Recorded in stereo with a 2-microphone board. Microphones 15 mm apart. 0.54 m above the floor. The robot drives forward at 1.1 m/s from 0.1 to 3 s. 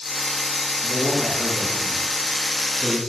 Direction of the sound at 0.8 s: 30° right (ahead or behind).